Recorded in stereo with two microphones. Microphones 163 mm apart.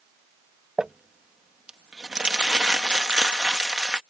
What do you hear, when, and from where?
0.8 s crumpling: 5° right (ahead or behind)